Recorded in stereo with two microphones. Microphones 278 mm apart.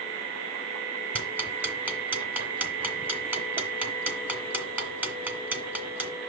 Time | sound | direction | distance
1.1 | ticking | 5° right (ahead or behind) | 2 m